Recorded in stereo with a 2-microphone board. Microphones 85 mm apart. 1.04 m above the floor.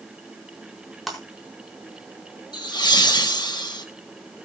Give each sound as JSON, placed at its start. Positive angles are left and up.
{"t": 1.1, "sound": "breaking glass", "side_deg": 0, "distance_m": 4.5}
{"t": 2.5, "sound": "laughter", "side_deg": 55, "distance_m": 1.0}